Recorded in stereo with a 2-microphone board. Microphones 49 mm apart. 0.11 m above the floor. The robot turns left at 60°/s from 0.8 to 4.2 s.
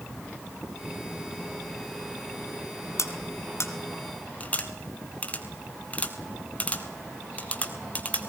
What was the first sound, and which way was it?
Cutlery clinking, 65° left (ahead or behind).